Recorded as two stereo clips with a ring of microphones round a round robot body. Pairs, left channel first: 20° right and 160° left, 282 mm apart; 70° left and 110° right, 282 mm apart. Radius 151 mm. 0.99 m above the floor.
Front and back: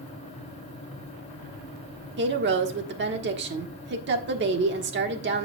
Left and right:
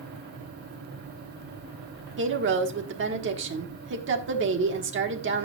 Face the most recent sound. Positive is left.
turn(degrees=-155)